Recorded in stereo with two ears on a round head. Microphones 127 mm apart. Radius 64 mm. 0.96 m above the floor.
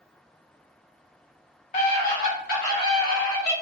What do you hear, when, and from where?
1.7 s a scream: 55° left (ahead or behind), 1.1 m; by 3.5 s 80° left, 2.5 m